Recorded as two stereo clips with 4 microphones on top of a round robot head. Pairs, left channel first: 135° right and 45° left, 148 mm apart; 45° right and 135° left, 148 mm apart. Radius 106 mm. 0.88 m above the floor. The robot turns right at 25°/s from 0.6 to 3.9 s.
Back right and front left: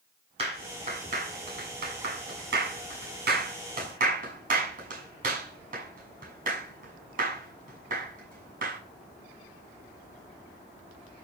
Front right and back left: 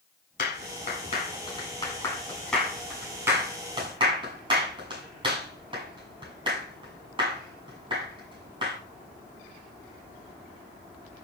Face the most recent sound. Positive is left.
turn(degrees=75)